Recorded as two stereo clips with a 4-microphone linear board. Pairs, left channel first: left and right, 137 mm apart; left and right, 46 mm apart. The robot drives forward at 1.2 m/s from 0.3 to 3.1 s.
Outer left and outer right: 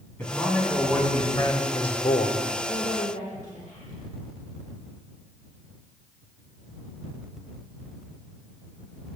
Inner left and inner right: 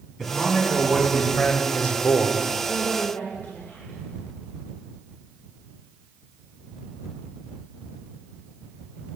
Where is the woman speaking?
80° left, 1.3 m; by 4.0 s 65° left (ahead or behind), 1.5 m.